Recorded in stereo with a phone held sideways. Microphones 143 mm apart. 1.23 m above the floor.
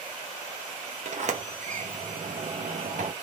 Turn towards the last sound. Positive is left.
turn(degrees=-55)  # may be behind; listen again after turning